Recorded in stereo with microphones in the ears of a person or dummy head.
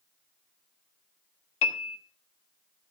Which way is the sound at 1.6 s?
40° left (ahead or behind).